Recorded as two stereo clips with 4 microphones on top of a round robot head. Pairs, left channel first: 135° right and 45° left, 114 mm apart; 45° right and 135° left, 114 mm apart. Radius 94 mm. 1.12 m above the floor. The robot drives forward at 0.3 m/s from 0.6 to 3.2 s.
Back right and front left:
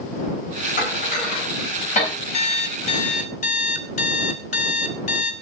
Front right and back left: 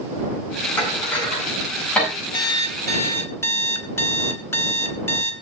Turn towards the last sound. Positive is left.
turn(degrees=-110)